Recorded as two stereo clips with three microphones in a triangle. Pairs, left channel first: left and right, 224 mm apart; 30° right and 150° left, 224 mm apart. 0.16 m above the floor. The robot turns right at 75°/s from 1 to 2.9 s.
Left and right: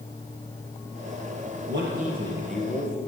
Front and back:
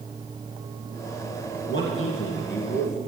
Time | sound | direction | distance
1.7 | a man speaking | 65° right | 3 m